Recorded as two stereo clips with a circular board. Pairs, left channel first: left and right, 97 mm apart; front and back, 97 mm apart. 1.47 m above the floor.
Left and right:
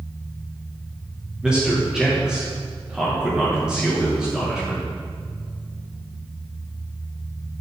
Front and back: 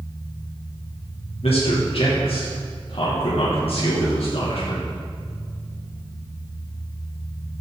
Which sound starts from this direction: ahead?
A man speaking, at 1.4 s.